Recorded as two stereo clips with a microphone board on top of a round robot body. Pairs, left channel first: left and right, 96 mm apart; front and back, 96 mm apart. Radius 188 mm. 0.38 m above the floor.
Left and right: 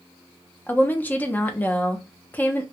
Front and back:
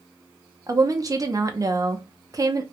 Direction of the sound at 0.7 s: 150° left.